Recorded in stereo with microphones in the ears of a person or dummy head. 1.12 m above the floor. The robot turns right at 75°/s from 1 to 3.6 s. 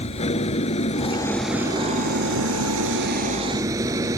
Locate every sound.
0.0 s an engine running: 145° left; by 4.2 s 20° right